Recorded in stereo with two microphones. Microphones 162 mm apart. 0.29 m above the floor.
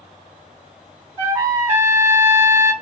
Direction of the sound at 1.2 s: 15° right (ahead or behind).